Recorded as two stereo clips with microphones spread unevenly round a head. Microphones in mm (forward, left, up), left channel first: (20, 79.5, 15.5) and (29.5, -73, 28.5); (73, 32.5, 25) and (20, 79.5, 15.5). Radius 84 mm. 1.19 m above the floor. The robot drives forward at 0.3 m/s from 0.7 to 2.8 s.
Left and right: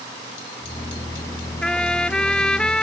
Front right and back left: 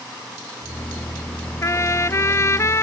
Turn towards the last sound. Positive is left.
turn(degrees=10)